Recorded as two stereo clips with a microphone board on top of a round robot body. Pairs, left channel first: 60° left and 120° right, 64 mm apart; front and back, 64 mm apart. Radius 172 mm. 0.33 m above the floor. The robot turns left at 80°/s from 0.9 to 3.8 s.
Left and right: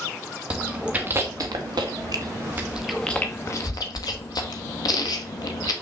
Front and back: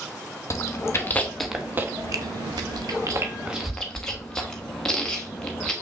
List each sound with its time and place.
0.5 s chewing: 45° right, 0.9 m; by 5.7 s 80° left, 0.9 m